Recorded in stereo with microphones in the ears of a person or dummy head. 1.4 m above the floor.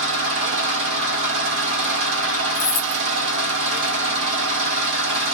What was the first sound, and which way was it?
An engine running, 70° right (ahead or behind).